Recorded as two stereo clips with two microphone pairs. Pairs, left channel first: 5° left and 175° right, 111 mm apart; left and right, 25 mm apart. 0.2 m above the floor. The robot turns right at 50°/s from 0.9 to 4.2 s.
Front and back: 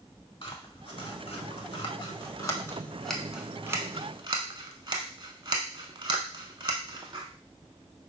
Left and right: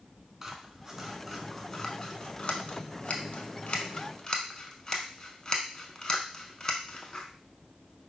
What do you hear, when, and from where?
0.4 s scissors: 20° right, 0.5 m; by 7.2 s 145° left, 0.5 m